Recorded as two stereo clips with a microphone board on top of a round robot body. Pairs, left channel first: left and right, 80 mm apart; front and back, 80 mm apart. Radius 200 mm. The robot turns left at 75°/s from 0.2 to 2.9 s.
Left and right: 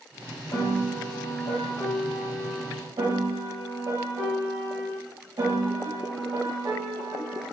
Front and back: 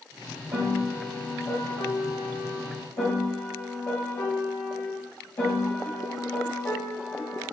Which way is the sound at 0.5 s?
140° left.